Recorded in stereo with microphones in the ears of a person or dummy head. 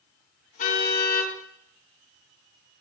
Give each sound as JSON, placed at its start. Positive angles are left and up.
{"t": 0.6, "sound": "a car horn", "side_deg": 50, "distance_m": 6.5}